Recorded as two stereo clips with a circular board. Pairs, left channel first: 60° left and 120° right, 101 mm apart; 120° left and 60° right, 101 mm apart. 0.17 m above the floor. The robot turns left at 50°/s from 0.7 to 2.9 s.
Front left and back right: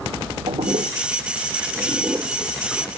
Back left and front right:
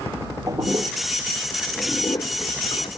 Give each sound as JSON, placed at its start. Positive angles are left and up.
{"t": 0.5, "sound": "a toilet flushing", "azimuth_deg": -110}